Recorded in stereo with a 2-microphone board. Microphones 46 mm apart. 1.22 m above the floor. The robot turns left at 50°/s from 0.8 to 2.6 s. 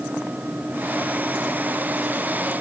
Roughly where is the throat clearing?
I don't hear throat clearing.